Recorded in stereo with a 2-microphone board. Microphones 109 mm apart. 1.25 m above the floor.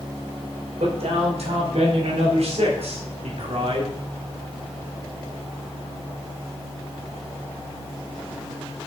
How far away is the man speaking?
About 4 m.